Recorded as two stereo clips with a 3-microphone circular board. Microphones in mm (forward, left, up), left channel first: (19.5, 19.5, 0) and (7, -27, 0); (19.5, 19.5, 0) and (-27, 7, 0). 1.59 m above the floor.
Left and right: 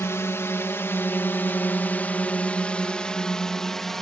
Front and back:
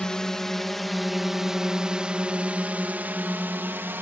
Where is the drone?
90° left; by 4.0 s 155° left.